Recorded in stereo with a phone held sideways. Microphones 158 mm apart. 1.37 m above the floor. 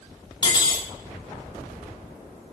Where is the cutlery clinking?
30° left (ahead or behind), 0.7 m.